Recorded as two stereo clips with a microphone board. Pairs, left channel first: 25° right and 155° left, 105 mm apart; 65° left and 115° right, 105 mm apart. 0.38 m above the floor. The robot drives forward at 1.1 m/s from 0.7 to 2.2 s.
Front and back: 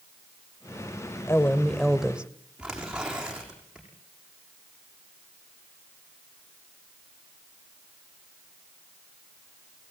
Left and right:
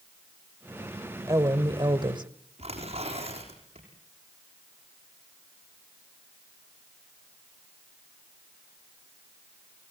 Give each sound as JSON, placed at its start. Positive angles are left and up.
{"t": 1.3, "sound": "a woman speaking", "azimuth_deg": -75, "distance_m": 1.6}
{"t": 2.6, "sound": "tearing paper", "azimuth_deg": -120, "distance_m": 7.0}